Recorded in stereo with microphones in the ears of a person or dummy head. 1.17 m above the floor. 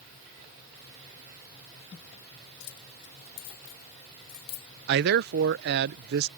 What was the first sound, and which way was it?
Keys jangling, 80° left.